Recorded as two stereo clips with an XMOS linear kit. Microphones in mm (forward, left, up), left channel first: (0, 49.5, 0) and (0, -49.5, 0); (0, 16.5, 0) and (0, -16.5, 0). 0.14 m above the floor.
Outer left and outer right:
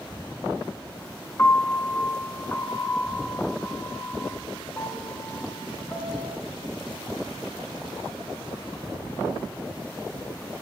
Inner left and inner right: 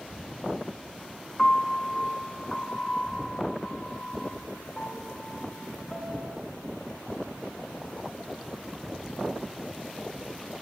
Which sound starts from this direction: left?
A piano, at 1.4 s.